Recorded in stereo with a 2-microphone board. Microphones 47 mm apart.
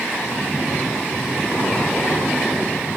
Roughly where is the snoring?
Left.